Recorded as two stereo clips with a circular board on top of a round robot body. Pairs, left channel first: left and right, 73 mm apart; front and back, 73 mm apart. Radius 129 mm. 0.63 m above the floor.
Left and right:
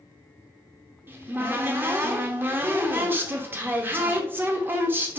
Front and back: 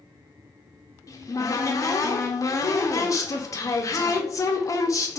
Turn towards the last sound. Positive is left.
turn(degrees=-35)